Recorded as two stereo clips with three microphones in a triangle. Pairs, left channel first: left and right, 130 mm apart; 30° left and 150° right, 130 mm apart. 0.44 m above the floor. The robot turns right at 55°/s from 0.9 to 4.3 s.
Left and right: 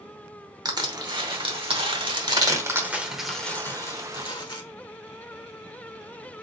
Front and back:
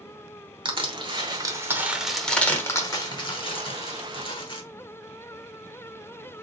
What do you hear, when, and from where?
0.7 s crushing: 130° right, 1.0 m; by 4.6 s 55° left, 1.0 m